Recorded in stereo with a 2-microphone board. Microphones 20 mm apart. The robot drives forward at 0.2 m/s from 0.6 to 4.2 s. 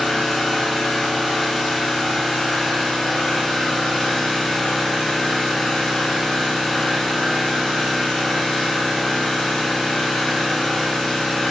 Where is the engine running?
70° left (ahead or behind), 2 m.